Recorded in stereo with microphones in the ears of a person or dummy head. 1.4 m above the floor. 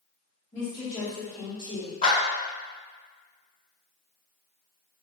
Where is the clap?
30° left (ahead or behind), 1.4 m.